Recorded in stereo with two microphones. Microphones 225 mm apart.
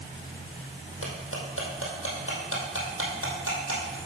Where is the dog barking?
No dog barking in this recording.